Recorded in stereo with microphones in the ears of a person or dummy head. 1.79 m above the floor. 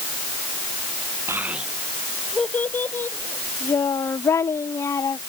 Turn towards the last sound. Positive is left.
turn(degrees=10)  # may be behind; listen again after turning